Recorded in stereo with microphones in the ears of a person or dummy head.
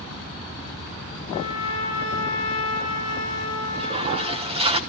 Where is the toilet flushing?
25° right (ahead or behind), 1.3 m.